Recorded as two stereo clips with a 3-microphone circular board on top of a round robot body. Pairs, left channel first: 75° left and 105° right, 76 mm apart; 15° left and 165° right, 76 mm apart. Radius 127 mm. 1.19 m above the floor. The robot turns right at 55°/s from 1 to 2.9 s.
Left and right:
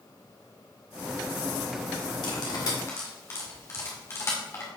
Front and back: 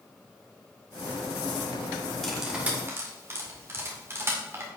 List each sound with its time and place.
2.2 s cutlery clinking: 100° left, 2.0 m; by 4.7 s 135° left, 2.0 m